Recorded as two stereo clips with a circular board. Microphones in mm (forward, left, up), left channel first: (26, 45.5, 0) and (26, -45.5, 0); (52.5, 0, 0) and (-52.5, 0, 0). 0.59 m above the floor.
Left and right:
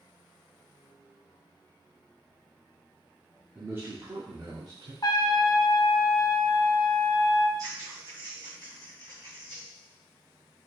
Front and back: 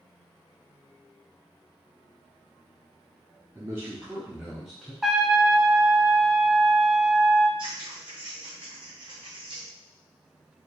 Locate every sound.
3.5 s a man speaking: 145° right, 1.0 m; by 4.9 s 85° right, 1.4 m
5.0 s a trumpet: 95° left, 0.5 m
7.6 s scissors: 140° right, 2 m